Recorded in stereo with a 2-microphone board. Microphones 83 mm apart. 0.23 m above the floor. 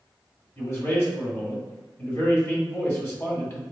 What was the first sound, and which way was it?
A man speaking, 35° left (ahead or behind).